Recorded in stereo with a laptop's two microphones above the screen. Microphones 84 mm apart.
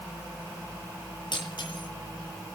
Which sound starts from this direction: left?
Breaking glass, at 1.3 s.